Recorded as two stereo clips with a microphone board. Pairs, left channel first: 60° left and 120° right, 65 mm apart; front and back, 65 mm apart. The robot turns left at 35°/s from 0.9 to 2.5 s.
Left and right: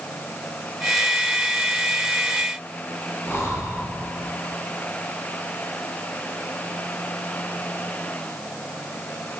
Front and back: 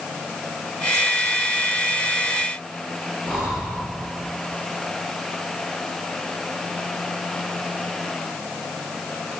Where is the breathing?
105° left, 3 m.